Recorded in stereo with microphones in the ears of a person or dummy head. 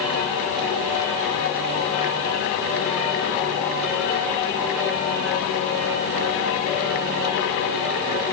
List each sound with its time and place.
Only background noise.